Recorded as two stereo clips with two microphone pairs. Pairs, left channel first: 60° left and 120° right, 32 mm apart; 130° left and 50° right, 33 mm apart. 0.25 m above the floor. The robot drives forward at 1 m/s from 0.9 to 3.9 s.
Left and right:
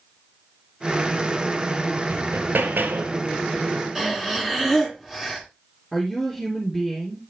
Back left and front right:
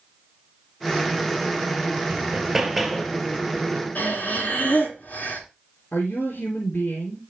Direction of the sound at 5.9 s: 150° left.